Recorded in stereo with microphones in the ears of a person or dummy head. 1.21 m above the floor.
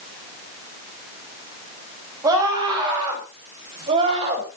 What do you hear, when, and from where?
2.2 s a scream: 20° right (ahead or behind), 8.5 m; by 4.5 s 35° right (ahead or behind), 6 m